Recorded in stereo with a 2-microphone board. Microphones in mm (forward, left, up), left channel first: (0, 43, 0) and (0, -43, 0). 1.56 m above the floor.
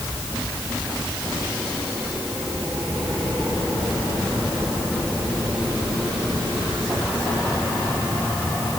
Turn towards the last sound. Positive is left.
No sound to turn to.